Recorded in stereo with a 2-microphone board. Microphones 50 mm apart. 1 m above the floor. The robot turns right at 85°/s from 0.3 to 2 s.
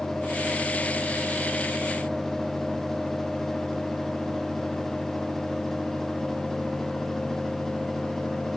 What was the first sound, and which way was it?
Only background noise.